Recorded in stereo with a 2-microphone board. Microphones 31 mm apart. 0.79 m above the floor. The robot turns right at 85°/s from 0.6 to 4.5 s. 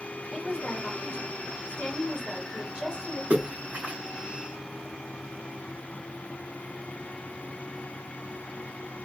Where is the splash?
75° right (ahead or behind), 1.4 m; by 4.0 s 45° right (ahead or behind), 1.4 m.